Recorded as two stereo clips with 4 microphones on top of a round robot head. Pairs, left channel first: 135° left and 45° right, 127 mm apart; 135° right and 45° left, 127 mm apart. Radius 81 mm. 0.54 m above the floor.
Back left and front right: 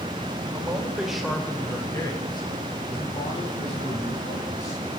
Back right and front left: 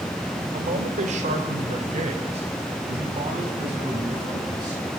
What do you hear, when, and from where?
0.5 s a man speaking: 20° left, 2.5 m; by 4.8 s 105° left, 6 m